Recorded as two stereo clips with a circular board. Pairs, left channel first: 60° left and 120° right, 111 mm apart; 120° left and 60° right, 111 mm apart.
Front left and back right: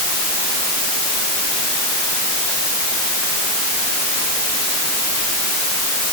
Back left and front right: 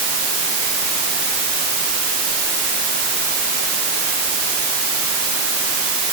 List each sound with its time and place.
Only background noise.